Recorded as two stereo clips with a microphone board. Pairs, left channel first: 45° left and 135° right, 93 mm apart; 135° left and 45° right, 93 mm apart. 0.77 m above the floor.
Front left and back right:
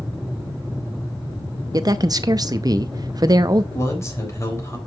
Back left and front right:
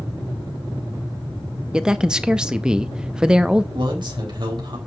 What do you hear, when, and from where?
1.7 s a man speaking: 120° right, 0.6 m
3.7 s a man speaking: 10° right, 4 m